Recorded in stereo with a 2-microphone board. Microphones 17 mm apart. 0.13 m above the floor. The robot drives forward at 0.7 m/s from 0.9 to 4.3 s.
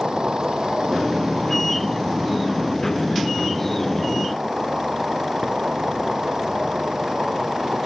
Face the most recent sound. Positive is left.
turn(degrees=-35)  # may be behind; listen again after turning